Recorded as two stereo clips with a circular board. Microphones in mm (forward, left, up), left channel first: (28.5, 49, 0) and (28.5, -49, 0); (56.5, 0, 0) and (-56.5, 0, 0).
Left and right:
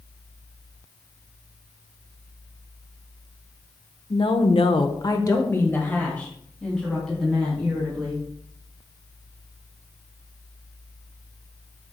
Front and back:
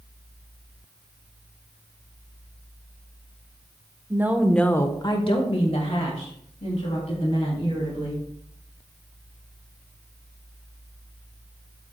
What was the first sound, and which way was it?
A woman speaking, 115° left.